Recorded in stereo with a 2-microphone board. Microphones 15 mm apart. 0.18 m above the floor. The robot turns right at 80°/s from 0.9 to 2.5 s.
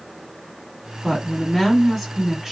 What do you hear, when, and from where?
1.0 s a woman speaking: 110° left, 1.3 m; by 2.5 s 130° right, 1.3 m